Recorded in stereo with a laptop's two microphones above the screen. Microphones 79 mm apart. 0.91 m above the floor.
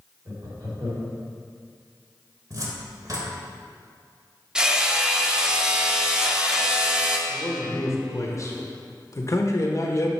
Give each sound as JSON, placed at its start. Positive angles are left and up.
{"t": 0.2, "sound": "laughter", "side_deg": -60, "distance_m": 2.5}
{"t": 2.5, "sound": "a cupboard door", "side_deg": -50, "distance_m": 1.2}
{"t": 4.5, "sound": "hammering", "side_deg": -10, "distance_m": 0.5}
{"t": 7.3, "sound": "a man speaking", "side_deg": 40, "distance_m": 1.0}